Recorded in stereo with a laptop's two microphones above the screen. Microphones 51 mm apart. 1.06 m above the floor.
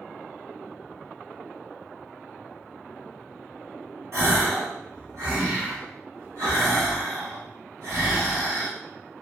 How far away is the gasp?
About 1.6 m.